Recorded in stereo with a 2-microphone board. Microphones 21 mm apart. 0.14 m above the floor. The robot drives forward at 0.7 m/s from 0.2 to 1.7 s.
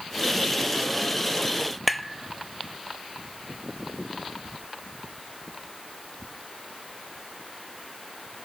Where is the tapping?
Centre (ahead or behind), 0.7 m.